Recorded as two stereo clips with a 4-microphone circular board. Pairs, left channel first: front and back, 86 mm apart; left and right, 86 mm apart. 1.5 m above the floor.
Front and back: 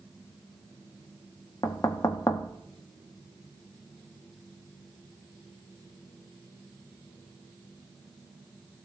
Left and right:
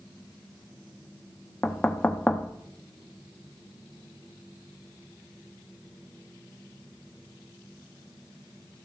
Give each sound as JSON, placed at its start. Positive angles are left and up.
{"t": 1.6, "sound": "knocking", "azimuth_deg": 25, "distance_m": 0.8}